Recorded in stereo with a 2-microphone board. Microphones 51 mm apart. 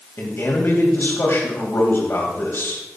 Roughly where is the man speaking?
Left.